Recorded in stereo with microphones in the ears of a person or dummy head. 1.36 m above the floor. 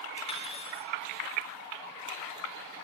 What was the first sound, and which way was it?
Cutlery clinking, 25° left (ahead or behind).